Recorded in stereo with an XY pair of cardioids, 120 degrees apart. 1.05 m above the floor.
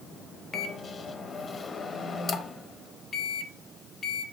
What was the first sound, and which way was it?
A microwave, 30° left.